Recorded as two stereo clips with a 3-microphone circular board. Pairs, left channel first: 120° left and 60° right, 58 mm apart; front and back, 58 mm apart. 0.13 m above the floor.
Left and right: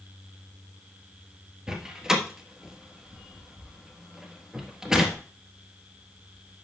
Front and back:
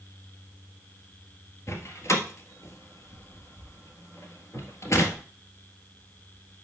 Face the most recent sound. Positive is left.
turn(degrees=20)